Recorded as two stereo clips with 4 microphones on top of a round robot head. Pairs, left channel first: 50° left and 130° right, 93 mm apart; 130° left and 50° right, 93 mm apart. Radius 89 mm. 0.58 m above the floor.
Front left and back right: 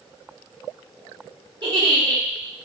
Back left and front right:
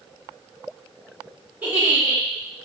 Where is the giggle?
120° right, 1.9 m.